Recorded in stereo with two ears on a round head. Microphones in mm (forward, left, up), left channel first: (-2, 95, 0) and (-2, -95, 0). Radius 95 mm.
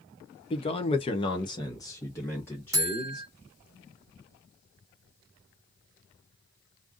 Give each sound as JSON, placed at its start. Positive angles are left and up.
{"t": 0.5, "sound": "a man speaking", "side_deg": 25, "distance_m": 0.6}
{"t": 2.7, "sound": "a buzzer", "side_deg": -15, "distance_m": 0.7}